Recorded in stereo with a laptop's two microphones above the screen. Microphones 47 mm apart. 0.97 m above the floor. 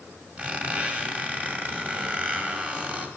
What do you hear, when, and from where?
0.4 s a squeak: 30° right (ahead or behind), 1.9 m